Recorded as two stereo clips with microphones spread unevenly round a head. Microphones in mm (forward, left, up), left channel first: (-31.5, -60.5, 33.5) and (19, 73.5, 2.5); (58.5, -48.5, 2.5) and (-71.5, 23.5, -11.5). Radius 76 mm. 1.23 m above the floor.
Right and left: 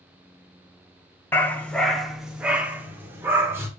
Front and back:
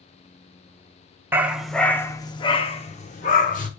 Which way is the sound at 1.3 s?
135° right.